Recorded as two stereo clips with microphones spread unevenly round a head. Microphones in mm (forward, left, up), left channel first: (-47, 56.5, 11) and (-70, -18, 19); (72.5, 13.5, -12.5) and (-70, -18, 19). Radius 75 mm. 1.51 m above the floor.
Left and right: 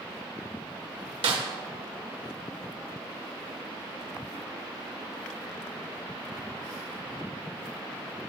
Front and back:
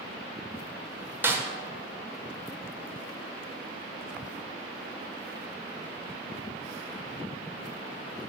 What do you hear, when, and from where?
1.2 s a snare drum: 90° right, 1.3 m